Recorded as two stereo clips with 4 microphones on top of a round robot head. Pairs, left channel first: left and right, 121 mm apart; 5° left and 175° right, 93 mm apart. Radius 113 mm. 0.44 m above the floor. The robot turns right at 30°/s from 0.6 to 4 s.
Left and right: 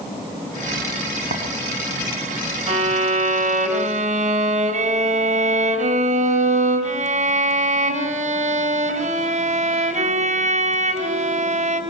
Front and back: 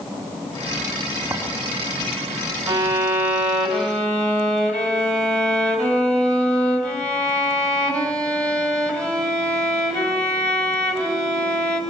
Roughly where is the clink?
Right.